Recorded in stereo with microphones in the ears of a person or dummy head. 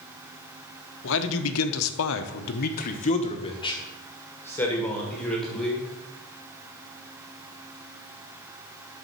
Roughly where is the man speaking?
Left.